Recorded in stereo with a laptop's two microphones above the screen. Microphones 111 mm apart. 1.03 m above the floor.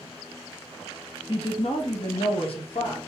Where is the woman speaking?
50° left (ahead or behind), 0.6 m; by 3.0 s 55° left (ahead or behind), 1.4 m.